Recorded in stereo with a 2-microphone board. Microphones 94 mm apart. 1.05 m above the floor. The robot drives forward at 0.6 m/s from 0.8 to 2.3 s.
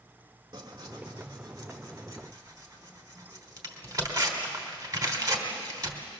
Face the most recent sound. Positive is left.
turn(degrees=-35)  # may be behind; listen again after turning